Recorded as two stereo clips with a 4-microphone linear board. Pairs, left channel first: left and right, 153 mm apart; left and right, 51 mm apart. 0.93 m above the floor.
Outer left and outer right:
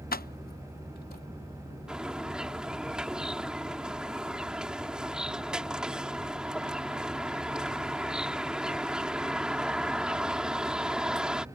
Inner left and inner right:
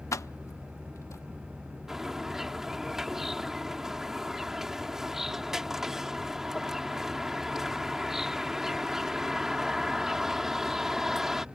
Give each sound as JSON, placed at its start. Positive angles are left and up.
{"t": 0.1, "sound": "keys jangling", "side_deg": 75}
{"t": 1.9, "sound": "a bird", "side_deg": -5}